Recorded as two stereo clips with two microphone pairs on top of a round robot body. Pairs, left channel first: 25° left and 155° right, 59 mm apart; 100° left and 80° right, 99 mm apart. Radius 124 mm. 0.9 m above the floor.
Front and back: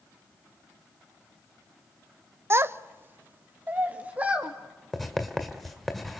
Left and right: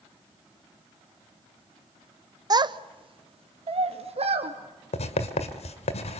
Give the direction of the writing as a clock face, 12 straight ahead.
8 o'clock.